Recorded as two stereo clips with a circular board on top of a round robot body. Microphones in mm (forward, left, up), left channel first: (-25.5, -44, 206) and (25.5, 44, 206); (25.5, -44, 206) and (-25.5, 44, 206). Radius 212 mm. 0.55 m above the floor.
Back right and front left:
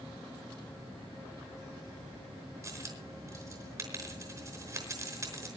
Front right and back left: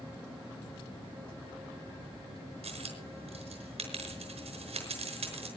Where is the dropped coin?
115° left, 5 m.